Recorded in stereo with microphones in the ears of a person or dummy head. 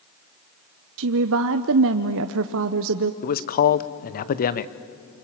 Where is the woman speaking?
70° right (ahead or behind), 0.9 m.